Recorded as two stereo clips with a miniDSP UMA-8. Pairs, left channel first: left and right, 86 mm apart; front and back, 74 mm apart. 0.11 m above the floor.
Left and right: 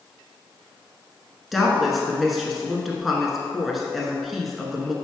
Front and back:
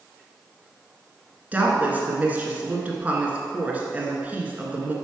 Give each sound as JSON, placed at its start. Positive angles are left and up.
{"t": 1.5, "sound": "a woman speaking", "azimuth_deg": -175, "distance_m": 1.1}